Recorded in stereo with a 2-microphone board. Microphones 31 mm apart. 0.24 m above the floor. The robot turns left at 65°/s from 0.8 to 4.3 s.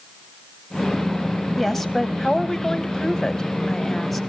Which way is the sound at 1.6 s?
5° left (ahead or behind).